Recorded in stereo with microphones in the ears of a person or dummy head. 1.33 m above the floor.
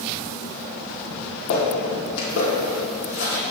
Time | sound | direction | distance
1.1 | footsteps | 55° left (ahead or behind) | 2 m